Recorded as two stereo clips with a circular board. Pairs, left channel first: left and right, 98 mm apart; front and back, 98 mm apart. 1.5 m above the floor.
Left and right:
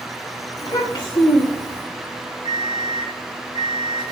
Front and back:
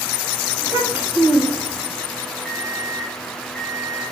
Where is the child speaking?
120° left, 1.5 m; by 1.8 s 85° left, 1.5 m.